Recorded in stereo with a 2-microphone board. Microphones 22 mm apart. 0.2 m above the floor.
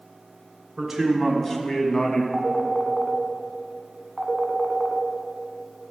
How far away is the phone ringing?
About 0.9 m.